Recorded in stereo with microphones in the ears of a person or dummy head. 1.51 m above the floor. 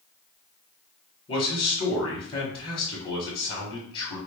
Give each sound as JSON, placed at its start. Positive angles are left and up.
{"t": 1.3, "sound": "a man speaking", "side_deg": 25, "distance_m": 1.3}